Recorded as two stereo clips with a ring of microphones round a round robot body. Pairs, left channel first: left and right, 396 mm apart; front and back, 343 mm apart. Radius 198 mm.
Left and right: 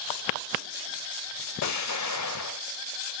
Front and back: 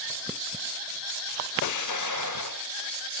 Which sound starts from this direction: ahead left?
An explosion, at 1.6 s.